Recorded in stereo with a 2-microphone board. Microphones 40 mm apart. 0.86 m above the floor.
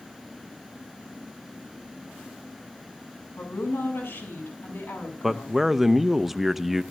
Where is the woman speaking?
80° left, 7 m; by 5.6 s 70° left (ahead or behind), 6 m.